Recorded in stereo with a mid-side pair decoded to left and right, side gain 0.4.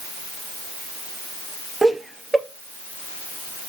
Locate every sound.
1.8 s laughter: 20° right, 2.5 m